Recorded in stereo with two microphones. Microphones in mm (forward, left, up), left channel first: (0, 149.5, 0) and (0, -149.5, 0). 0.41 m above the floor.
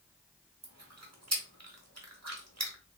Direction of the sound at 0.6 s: 60° right (ahead or behind).